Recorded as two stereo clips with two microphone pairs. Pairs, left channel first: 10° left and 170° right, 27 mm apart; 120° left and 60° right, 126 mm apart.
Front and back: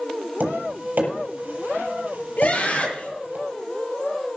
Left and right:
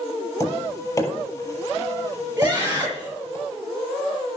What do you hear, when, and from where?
0.4 s tapping: 175° right, 6.5 m
2.4 s a scream: 10° left, 8 m